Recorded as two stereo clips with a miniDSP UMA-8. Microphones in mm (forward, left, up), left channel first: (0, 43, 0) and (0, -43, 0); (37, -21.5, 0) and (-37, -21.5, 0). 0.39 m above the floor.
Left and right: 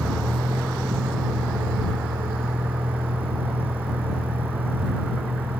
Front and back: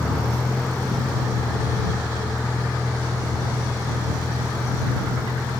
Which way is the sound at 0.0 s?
70° right.